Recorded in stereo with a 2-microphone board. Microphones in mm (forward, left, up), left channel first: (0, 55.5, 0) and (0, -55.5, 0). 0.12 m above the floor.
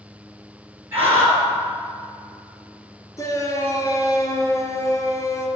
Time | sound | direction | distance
0.9 | a scream | 25° right (ahead or behind) | 2.5 m
3.2 | a shout | 30° left (ahead or behind) | 1.9 m